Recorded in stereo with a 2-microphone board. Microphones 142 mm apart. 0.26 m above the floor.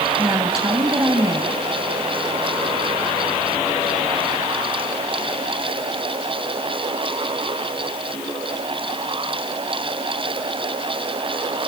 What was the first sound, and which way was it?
A woman speaking, 25° right (ahead or behind).